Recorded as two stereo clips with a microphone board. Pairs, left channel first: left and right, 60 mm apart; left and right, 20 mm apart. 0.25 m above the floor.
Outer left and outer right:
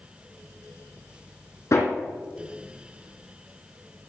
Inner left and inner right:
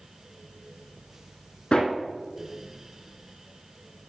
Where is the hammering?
50° left (ahead or behind), 3 m.